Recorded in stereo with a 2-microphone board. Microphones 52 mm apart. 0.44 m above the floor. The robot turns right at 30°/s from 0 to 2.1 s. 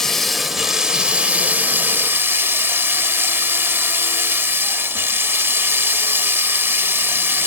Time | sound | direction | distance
0.0 | running water | 170° left | 0.9 m